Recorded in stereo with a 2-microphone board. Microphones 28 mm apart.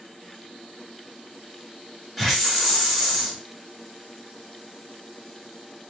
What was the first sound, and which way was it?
A hiss, centre (ahead or behind).